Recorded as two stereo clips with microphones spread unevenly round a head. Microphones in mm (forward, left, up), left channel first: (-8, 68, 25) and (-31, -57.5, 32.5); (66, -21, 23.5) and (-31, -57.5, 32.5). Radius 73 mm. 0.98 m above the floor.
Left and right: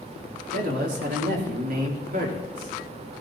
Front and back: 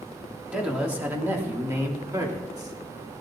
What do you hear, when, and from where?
0.5 s a man speaking: 80° right, 3 m; by 3.2 s 115° right, 3 m